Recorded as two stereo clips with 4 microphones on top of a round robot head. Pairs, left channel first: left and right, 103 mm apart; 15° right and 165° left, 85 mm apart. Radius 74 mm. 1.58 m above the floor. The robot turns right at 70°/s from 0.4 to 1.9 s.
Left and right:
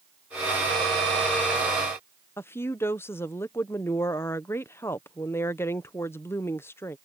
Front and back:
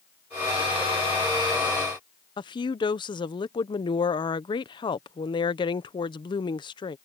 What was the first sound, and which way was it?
A woman speaking, 20° left.